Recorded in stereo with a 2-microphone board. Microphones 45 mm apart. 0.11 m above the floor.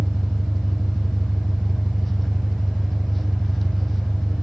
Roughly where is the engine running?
Centre.